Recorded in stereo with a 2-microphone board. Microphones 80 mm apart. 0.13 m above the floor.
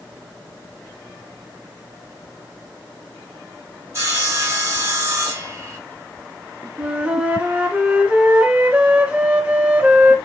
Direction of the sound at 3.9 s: 35° right (ahead or behind).